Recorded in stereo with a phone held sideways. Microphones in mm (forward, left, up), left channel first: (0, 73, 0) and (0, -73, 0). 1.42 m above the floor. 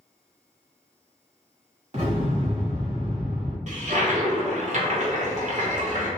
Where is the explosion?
50° right (ahead or behind), 1.3 m.